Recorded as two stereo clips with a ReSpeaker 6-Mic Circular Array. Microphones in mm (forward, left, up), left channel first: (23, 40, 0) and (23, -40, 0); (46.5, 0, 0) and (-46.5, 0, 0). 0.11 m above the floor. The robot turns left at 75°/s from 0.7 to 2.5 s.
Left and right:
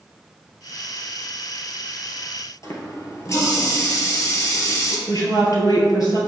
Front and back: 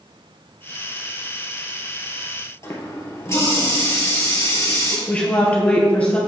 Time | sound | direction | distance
2.6 | a running tap | 50° left | 1.4 m
5.1 | a woman speaking | 70° left | 1.9 m